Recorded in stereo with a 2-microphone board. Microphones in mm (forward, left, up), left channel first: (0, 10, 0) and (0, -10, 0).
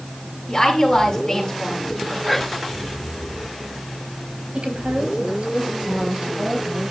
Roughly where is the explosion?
No explosion in this recording.